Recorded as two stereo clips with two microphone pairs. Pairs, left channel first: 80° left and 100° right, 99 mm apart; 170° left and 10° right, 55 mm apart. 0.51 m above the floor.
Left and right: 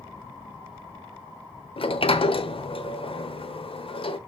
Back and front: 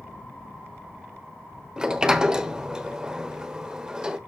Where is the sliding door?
70° left, 1.1 m.